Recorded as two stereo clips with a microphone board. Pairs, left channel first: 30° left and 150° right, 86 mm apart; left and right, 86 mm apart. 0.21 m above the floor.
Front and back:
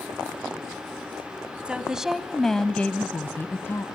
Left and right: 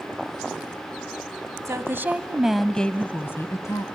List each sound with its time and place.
1.6 s a woman speaking: 85° right, 1.4 m; by 3.8 s 75° left, 1.6 m